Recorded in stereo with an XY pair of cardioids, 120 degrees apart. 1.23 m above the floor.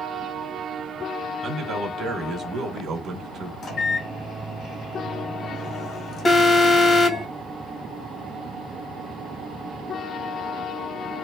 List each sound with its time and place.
1.4 s a man speaking: 45° right, 1.6 m
3.6 s a microwave: 50° left, 1.3 m
6.2 s an alarm: 35° left, 1.1 m